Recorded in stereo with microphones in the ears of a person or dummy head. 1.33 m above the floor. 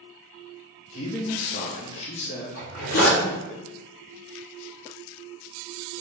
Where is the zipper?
75° left (ahead or behind), 1.7 m.